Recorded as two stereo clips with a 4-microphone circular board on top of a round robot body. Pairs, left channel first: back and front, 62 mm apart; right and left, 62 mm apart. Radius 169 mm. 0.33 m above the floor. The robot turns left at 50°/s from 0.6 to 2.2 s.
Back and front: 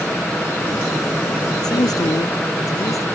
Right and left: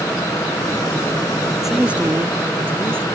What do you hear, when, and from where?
1.6 s a man speaking: 175° left; by 3.1 s 150° left